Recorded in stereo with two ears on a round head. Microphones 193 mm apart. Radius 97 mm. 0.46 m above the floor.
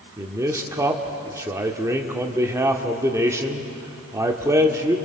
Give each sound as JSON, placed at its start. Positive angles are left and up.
{"t": 0.2, "sound": "a man speaking", "side_deg": -15, "distance_m": 1.4}